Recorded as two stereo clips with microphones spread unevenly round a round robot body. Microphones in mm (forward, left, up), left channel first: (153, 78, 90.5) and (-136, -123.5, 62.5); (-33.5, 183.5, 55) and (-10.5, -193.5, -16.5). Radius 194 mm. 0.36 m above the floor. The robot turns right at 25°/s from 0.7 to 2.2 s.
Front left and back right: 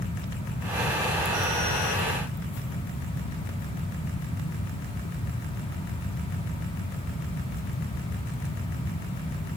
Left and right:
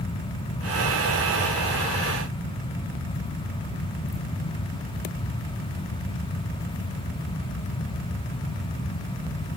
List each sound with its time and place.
Only background noise.